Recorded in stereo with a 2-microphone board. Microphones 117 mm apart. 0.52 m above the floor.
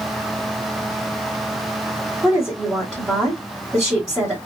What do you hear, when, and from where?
2.2 s a woman speaking: 5° right (ahead or behind), 2.0 m